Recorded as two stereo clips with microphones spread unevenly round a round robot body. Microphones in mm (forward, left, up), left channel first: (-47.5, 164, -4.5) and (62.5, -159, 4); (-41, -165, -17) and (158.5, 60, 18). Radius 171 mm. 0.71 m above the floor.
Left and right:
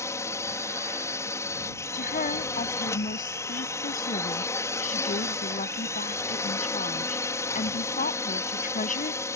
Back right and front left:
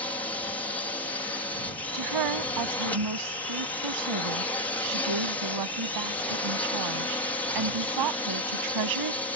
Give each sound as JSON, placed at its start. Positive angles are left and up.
{"t": 0.0, "sound": "a drone", "azimuth_deg": 175}
{"t": 1.9, "sound": "a woman speaking", "azimuth_deg": 40}